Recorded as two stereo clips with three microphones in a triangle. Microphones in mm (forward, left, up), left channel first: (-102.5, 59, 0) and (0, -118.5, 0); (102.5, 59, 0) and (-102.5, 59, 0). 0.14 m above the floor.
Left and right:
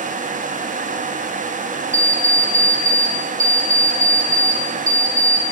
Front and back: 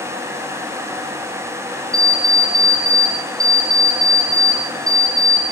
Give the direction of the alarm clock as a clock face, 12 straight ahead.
2 o'clock.